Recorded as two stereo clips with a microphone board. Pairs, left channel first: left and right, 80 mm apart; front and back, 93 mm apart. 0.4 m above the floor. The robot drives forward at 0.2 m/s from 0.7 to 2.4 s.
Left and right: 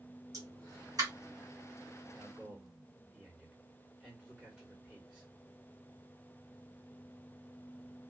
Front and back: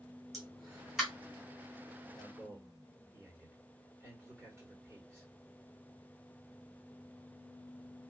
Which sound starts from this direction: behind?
A man speaking, at 2.1 s.